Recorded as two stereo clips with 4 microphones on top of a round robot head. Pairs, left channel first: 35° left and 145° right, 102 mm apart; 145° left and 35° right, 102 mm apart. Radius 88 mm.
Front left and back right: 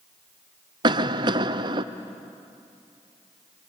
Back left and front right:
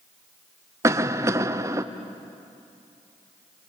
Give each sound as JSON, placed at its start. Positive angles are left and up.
{"t": 0.8, "sound": "a cough", "azimuth_deg": -100, "distance_m": 0.6}